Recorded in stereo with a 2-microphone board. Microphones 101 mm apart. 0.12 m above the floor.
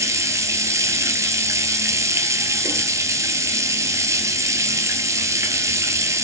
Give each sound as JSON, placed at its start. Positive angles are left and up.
{"t": 0.0, "sound": "running water", "side_deg": -30, "distance_m": 0.8}